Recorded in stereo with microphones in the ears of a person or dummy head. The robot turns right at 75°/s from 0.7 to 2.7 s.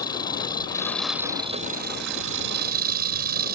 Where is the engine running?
155° left; by 3.5 s 55° right.